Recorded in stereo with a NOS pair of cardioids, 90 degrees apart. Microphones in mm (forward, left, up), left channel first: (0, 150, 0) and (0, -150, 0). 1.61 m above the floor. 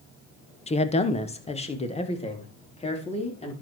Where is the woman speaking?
20° left, 1.3 m.